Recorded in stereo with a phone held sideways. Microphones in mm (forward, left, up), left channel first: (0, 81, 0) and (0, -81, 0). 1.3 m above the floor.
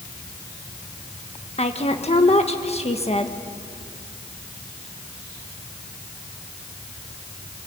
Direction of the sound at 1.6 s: 40° left (ahead or behind).